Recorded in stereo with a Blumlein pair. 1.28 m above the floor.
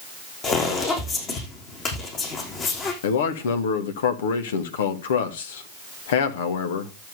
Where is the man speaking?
60° left, 2 m.